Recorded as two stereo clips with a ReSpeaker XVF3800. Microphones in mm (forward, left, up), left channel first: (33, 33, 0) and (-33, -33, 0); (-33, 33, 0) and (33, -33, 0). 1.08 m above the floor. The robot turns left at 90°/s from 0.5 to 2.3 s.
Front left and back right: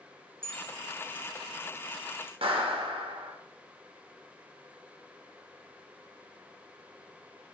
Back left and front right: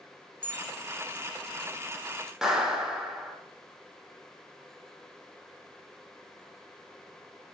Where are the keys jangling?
150° right, 1.0 m; by 2.3 s 50° left, 1.0 m.